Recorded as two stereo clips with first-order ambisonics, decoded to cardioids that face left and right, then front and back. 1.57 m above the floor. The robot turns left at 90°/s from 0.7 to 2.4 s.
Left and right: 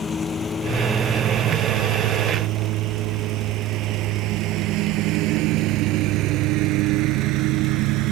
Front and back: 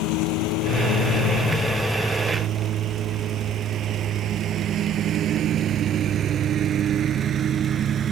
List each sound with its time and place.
0.0 s a lawn mower: 20° left; by 8.1 s 120° right